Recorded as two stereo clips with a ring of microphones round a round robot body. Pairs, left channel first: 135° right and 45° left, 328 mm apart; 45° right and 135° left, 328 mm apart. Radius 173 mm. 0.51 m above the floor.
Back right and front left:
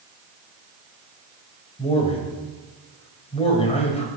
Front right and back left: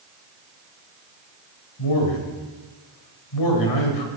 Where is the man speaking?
65° right, 3 m.